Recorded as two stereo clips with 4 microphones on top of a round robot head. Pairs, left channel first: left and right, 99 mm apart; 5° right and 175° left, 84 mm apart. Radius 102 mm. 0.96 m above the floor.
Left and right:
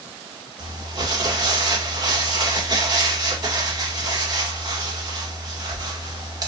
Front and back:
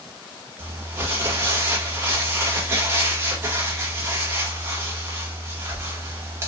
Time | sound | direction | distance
0.6 | crumpling | 130° right | 1.4 m